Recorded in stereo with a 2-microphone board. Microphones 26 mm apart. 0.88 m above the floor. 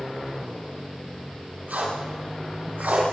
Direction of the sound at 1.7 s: 75° right (ahead or behind).